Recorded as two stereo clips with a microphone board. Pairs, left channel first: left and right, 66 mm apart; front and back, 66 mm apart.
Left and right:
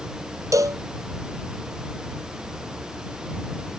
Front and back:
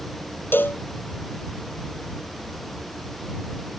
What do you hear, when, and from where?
0.5 s a cowbell: 60° right